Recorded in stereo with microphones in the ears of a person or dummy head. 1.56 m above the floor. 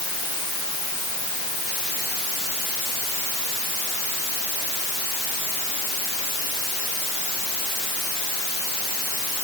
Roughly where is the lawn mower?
I don't hear a lawn mower.